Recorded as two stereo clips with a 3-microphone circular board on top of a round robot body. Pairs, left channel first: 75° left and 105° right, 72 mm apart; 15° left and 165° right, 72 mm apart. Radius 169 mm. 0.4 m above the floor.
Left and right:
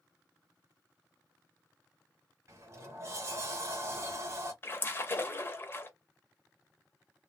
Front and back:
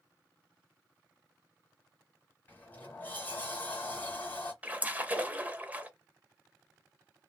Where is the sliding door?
50° right, 0.7 m.